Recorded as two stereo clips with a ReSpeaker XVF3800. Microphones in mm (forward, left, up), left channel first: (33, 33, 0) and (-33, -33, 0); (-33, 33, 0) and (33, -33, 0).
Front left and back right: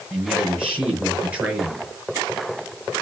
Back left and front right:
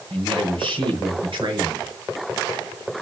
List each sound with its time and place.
0.1 s a man speaking: 60° right, 5 m